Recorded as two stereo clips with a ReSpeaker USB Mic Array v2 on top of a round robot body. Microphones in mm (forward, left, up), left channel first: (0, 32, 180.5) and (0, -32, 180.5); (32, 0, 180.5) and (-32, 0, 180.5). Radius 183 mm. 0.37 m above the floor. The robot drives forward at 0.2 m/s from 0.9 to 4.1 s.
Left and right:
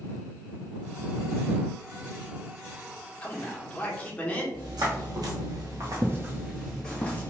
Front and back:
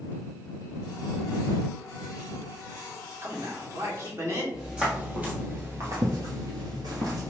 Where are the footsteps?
100° right, 1.2 m; by 7.3 s 155° left, 0.8 m.